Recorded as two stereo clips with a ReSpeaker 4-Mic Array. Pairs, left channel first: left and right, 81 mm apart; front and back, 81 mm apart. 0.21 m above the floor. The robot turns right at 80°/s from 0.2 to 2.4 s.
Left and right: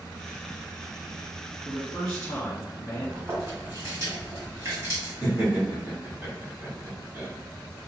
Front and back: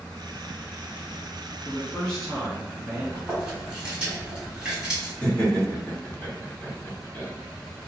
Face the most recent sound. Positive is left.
turn(degrees=-55)